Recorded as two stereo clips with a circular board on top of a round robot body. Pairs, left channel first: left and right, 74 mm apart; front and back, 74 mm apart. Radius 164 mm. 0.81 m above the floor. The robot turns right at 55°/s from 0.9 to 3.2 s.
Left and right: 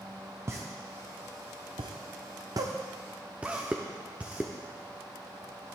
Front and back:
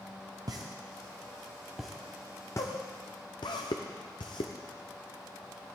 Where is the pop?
145° right, 0.6 m; by 4.5 s 20° right, 0.6 m.